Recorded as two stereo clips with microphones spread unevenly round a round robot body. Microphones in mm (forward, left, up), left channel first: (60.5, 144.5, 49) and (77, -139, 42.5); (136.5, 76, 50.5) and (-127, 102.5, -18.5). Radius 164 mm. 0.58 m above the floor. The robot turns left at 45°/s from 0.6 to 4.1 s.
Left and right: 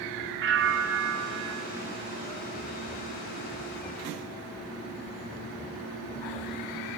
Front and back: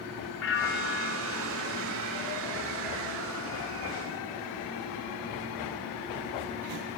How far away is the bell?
About 2.0 m.